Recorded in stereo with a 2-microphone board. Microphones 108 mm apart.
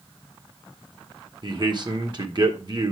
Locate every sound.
1.4 s a man speaking: 45° right (ahead or behind), 1.7 m